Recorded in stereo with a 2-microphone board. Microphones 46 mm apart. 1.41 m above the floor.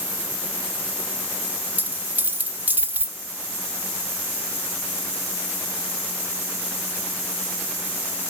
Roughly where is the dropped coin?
Right.